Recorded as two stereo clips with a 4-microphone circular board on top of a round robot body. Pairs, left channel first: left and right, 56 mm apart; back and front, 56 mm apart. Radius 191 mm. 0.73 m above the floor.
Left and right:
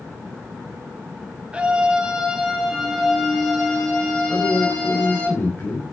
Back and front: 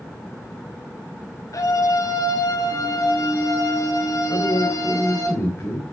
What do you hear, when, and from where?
1.5 s a scream: 165° right, 5 m; by 5.3 s 160° left, 6.5 m
4.3 s a man speaking: 140° left, 4 m